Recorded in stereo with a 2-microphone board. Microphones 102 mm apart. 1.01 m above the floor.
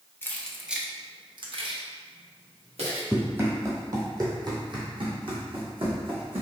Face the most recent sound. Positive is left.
turn(degrees=-65)  # may be behind; listen again after turning